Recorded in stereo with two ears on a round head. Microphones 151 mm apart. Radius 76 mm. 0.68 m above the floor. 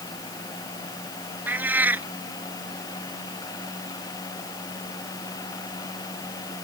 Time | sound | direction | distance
1.5 | a cat meowing | 10° right (ahead or behind) | ?